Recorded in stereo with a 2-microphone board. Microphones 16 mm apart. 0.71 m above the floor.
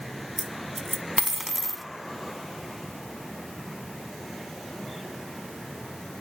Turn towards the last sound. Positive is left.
turn(degrees=-5)  # may be behind; listen again after turning